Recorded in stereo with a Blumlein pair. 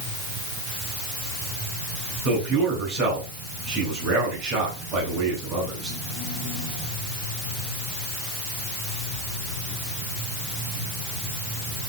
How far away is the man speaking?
About 9 m.